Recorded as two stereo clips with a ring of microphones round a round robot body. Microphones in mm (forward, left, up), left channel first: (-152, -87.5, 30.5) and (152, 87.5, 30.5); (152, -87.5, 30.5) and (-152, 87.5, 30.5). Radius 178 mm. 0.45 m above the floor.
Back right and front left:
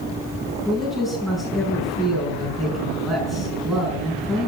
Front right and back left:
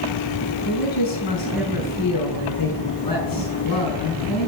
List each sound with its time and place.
0.7 s a man speaking: 60° right, 5 m